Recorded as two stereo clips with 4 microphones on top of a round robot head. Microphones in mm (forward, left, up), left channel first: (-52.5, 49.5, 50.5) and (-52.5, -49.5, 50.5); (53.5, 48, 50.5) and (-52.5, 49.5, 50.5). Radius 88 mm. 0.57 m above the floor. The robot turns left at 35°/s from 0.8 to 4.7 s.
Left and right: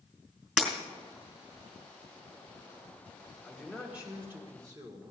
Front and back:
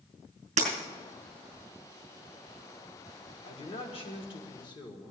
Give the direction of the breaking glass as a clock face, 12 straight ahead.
6 o'clock.